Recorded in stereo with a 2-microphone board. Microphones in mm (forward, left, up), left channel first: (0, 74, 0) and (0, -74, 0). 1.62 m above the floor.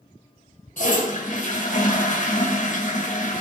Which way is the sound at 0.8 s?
60° left (ahead or behind).